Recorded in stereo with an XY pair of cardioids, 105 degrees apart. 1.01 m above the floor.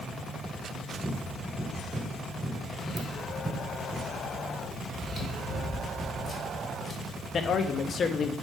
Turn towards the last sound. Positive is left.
turn(degrees=45)